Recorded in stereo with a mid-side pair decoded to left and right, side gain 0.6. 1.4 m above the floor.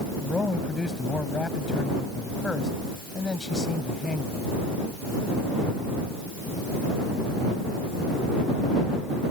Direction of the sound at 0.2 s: 20° left.